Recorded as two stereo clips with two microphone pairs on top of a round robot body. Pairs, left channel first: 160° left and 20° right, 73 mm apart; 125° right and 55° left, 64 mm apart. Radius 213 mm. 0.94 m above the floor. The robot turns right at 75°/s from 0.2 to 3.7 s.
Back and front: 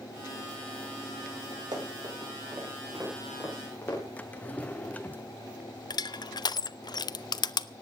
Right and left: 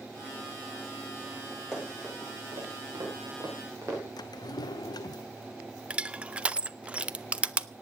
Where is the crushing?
130° left, 0.6 m.